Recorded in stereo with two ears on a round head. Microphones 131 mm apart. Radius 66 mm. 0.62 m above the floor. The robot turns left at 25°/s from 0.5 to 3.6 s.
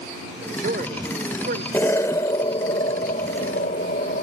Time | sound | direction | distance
0.4 | a man speaking | 50° right (ahead or behind) | ?
1.7 | an explosion | 165° left | ?